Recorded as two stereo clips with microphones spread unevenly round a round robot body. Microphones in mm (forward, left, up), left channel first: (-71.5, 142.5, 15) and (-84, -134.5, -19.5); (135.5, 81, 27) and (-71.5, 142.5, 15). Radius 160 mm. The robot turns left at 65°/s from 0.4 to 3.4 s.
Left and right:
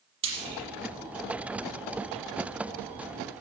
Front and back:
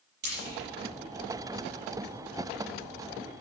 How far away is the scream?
I don't hear a scream.